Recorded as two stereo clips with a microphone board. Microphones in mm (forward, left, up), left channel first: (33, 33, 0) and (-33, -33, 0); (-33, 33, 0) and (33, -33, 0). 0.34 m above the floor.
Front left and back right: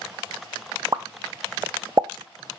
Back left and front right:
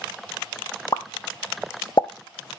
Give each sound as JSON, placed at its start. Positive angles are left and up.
{"t": 0.9, "sound": "a pop", "azimuth_deg": 180, "distance_m": 0.6}